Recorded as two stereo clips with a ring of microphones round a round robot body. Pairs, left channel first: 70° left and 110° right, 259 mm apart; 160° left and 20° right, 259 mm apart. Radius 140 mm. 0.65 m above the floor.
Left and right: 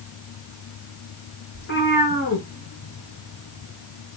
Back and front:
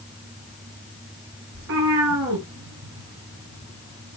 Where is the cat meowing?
15° left, 4.5 m; by 4.2 s 10° right, 3.5 m.